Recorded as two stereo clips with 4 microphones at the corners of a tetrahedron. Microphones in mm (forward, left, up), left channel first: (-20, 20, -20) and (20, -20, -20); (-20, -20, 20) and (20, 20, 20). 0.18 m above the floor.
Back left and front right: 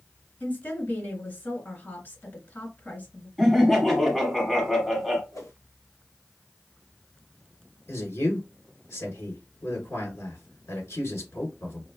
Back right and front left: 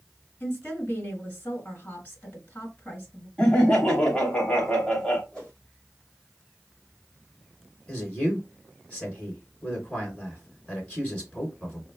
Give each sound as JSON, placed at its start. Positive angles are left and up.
{"t": 0.4, "sound": "a woman speaking", "azimuth_deg": 180, "distance_m": 1.9}
{"t": 3.4, "sound": "laughter", "azimuth_deg": -145, "distance_m": 1.0}
{"t": 5.3, "sound": "a whoosh", "azimuth_deg": 150, "distance_m": 2.5}
{"t": 7.9, "sound": "a man speaking", "azimuth_deg": 155, "distance_m": 2.5}